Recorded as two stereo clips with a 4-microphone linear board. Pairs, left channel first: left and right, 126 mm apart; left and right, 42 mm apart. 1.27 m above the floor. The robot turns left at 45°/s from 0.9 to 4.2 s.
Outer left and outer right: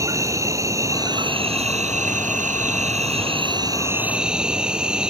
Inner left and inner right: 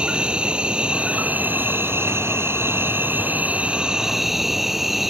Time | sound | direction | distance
0.0 | an insect | 25° right | ?